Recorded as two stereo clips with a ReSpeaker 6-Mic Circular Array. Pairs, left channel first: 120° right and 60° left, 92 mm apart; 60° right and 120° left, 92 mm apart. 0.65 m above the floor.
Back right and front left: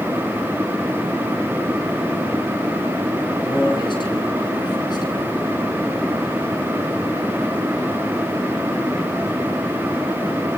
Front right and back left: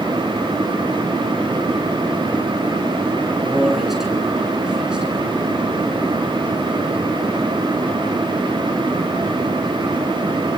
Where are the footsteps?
No footsteps in this recording.